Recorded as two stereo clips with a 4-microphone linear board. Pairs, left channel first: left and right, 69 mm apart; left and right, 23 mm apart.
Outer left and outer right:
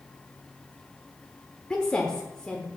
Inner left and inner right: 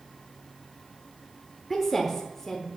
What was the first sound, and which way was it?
A woman speaking, 10° left (ahead or behind).